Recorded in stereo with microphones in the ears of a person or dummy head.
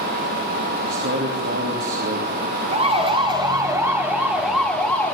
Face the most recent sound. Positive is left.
turn(degrees=10)  # may be behind; listen again after turning